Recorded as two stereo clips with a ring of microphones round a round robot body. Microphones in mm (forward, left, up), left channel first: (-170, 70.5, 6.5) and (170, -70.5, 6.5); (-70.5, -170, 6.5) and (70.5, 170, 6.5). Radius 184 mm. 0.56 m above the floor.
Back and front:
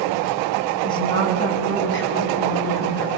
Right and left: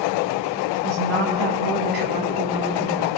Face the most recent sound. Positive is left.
turn(degrees=115)